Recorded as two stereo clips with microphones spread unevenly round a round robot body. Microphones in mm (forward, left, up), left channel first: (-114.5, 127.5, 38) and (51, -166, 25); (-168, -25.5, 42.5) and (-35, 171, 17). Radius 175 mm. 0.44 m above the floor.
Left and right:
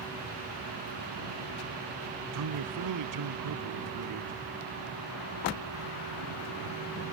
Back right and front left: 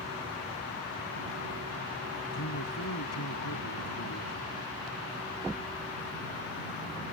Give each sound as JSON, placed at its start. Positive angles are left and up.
{"t": 2.3, "sound": "a man speaking", "azimuth_deg": -90}